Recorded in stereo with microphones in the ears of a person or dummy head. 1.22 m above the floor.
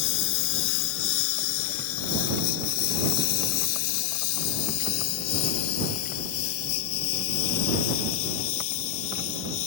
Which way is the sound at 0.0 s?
65° left (ahead or behind).